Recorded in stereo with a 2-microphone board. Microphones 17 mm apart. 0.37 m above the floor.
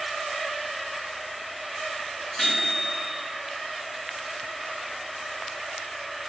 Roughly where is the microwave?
Left.